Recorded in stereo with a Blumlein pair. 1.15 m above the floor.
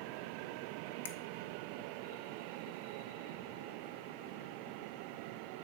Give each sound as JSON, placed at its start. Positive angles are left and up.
{"t": 1.1, "sound": "a finger snap", "azimuth_deg": 65, "distance_m": 1.0}